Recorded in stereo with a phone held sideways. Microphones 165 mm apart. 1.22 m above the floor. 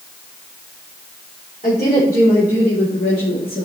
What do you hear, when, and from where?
1.6 s a woman speaking: 55° left (ahead or behind), 3.5 m; by 3.6 s 70° left (ahead or behind), 1.8 m